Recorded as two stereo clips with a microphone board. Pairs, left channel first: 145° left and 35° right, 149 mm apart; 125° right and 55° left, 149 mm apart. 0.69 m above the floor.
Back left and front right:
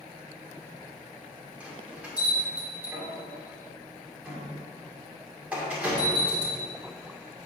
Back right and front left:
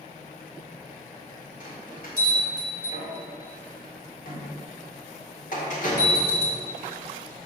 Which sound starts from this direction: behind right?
A bell, at 1.6 s.